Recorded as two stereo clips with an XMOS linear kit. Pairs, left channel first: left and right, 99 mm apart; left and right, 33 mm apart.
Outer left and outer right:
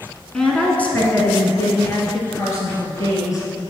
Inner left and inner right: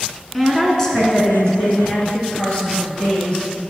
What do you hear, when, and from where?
0.3 s a woman speaking: 5° left (ahead or behind), 1.7 m; by 3.7 s 35° left (ahead or behind), 4 m